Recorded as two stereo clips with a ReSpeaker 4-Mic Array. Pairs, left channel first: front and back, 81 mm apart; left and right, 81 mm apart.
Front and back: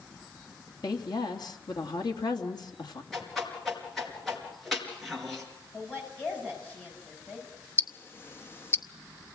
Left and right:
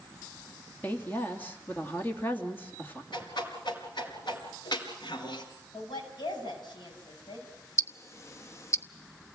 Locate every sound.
0.8 s a woman speaking: 25° left, 2.5 m
3.1 s a whoosh: 90° left, 4.5 m
5.7 s a woman speaking: 70° left, 9 m
7.8 s ticking: 50° left, 0.9 m